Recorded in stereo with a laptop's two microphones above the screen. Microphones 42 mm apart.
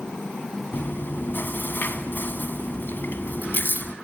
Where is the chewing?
55° left (ahead or behind), 1.7 m.